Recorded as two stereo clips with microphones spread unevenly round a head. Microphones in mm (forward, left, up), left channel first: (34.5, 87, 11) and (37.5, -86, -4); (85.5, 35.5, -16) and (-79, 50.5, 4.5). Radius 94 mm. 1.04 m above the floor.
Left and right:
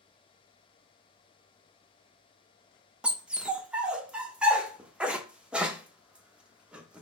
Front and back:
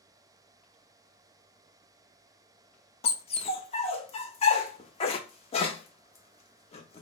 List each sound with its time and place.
3.0 s a dog barking: 5° right, 0.6 m